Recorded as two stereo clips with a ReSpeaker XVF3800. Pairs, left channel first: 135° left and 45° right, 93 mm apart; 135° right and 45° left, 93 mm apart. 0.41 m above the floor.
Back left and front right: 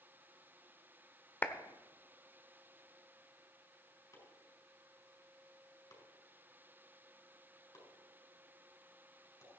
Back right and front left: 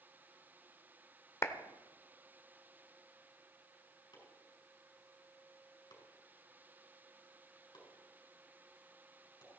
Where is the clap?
170° right, 0.8 m.